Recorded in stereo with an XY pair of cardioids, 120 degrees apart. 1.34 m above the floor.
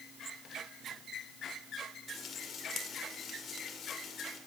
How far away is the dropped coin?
No dropped coin in this recording.